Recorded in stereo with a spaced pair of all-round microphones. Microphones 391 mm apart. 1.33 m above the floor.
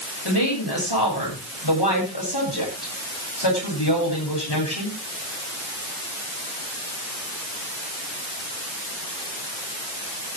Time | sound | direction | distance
0.2 | a woman speaking | 85° left | 9 m